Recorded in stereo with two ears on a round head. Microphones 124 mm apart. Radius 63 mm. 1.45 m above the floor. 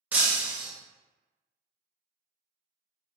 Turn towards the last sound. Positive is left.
turn(degrees=-10)  # may be behind; listen again after turning